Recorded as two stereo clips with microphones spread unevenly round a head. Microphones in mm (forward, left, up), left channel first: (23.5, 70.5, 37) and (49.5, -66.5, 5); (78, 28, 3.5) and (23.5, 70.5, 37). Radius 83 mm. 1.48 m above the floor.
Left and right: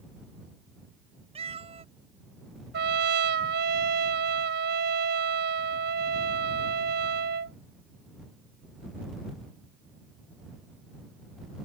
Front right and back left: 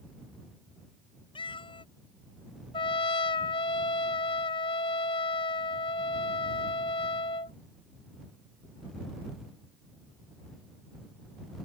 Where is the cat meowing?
25° right.